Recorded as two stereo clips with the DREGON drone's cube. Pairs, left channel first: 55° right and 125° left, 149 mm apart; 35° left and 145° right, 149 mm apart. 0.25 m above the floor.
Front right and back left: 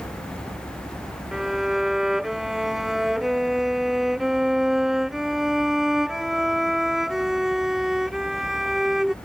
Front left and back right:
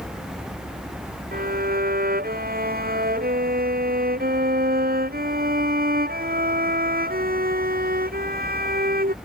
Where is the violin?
150° right.